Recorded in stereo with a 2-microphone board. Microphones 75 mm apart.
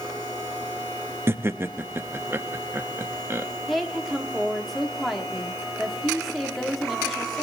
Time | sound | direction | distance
1.3 | laughter | 35° right (ahead or behind) | 0.6 m
3.7 | a woman speaking | centre (ahead or behind) | 1.6 m